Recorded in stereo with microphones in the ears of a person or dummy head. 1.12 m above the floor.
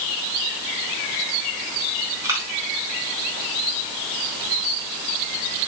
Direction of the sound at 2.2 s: 15° right (ahead or behind).